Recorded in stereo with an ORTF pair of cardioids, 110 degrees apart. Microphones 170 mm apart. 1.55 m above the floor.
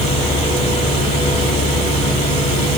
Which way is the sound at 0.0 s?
40° left.